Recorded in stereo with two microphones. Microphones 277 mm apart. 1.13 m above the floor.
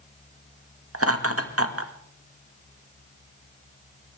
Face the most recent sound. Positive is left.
turn(degrees=-55)  # may be behind; listen again after turning